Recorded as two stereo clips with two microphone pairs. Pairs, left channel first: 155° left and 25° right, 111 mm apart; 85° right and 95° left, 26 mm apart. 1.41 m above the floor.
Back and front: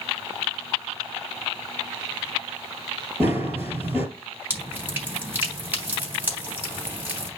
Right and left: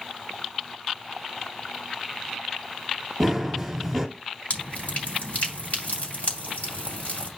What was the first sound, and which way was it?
Running footsteps, 10° left.